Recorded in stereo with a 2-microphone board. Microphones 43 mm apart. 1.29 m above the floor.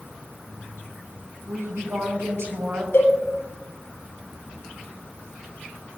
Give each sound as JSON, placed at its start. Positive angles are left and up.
{"t": 1.5, "sound": "a woman speaking", "side_deg": -85, "distance_m": 6.0}
{"t": 2.9, "sound": "a cowbell", "side_deg": 75, "distance_m": 6.0}